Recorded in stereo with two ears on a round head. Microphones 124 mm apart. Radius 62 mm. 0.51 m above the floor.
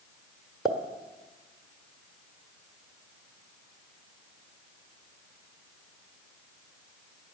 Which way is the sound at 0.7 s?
5° right (ahead or behind).